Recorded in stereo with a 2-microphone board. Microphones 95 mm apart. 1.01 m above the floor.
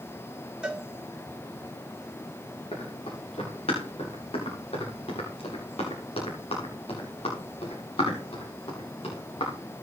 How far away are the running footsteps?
About 8.5 m.